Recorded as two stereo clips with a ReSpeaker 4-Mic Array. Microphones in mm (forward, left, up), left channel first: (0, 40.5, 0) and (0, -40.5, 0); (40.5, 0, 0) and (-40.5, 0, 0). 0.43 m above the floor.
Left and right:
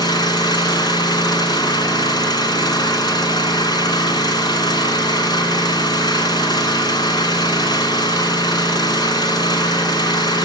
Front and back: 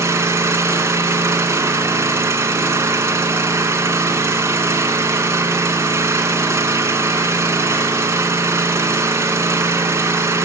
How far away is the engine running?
About 2.5 m.